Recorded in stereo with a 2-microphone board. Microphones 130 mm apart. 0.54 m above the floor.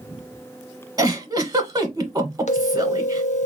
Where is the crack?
No crack in this recording.